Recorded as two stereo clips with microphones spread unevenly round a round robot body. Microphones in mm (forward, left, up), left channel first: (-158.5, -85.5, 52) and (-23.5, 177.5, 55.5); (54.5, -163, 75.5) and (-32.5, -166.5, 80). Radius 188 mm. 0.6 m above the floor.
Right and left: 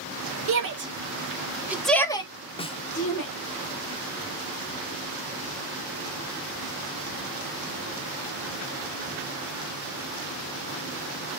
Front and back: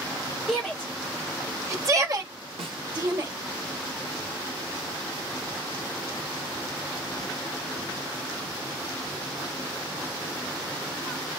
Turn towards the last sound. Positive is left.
turn(degrees=170)